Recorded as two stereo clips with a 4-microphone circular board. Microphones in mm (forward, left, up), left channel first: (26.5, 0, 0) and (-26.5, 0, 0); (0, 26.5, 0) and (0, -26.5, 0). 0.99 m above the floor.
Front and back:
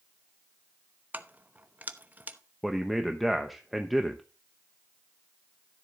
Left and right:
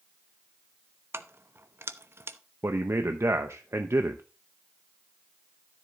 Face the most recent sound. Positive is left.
turn(degrees=-90)